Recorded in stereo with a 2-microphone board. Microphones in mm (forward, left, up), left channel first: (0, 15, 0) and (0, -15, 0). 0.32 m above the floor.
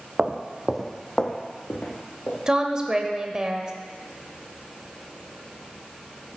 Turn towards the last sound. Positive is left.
turn(degrees=-20)  # may be behind; listen again after turning